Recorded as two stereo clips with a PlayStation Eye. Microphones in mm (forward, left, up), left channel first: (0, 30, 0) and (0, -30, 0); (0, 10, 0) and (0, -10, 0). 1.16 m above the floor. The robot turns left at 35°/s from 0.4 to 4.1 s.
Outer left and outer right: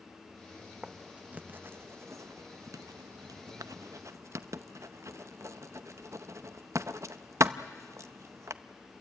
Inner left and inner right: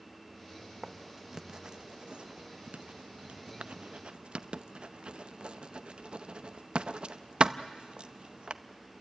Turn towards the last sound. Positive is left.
turn(degrees=-55)  # may be behind; listen again after turning